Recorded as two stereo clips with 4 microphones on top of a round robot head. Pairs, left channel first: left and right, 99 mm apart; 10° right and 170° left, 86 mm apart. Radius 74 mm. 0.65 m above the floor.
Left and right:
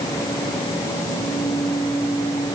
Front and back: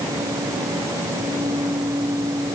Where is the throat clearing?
I don't hear throat clearing.